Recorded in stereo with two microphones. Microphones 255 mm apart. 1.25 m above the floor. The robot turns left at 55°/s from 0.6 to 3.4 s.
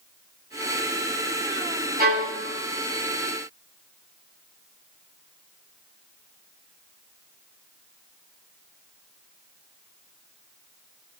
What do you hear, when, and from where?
2.0 s a violin: 35° right (ahead or behind), 1.7 m; by 2.4 s 55° right (ahead or behind), 1.7 m